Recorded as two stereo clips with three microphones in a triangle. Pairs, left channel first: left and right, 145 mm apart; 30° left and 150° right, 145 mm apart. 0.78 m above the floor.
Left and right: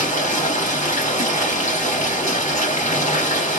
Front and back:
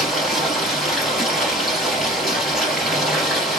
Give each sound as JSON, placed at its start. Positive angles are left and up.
{"t": 0.0, "sound": "running water", "azimuth_deg": 120, "distance_m": 2.5}